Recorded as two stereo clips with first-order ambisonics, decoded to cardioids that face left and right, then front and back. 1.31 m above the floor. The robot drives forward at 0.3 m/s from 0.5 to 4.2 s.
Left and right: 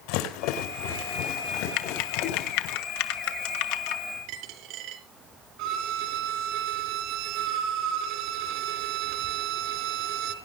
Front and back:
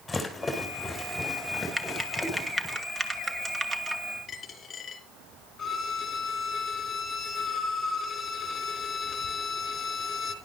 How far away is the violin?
About 4 m.